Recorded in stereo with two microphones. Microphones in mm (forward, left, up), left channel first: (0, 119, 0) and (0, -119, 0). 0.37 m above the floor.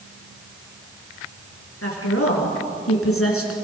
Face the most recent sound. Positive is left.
turn(degrees=65)  # may be behind; listen again after turning